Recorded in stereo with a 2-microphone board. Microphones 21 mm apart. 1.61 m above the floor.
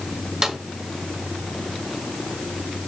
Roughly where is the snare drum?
Right.